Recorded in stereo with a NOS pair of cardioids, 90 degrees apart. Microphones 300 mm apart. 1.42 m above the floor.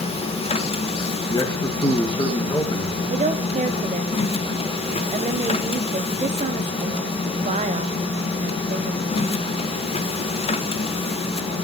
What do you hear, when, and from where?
0.0 s a machine running: 20° left, 0.9 m
1.3 s a man speaking: 15° left, 2.5 m
3.1 s a woman speaking: 25° right, 1.3 m